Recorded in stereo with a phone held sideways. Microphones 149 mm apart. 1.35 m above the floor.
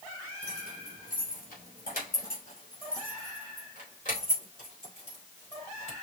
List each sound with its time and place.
0.4 s keys jangling: 80° left, 3 m; by 5.9 s 50° left (ahead or behind), 4.5 m